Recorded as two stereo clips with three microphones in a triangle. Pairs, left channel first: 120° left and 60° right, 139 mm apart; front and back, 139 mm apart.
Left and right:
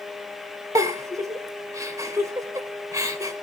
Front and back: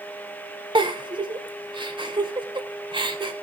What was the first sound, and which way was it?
A giggle, 125° right.